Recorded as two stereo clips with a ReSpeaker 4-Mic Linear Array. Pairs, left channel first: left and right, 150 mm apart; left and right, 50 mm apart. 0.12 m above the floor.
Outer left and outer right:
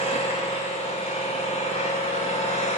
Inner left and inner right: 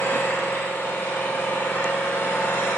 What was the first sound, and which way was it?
An engine running, 45° left (ahead or behind).